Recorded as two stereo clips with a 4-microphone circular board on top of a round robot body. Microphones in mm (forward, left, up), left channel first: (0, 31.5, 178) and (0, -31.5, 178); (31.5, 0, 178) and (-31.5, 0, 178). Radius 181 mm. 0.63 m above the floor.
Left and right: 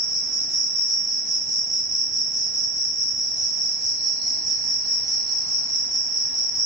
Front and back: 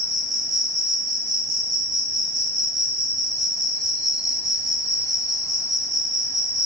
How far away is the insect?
About 1.2 m.